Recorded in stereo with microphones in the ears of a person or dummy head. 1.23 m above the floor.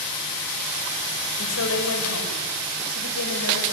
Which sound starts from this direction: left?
A woman speaking, at 1.4 s.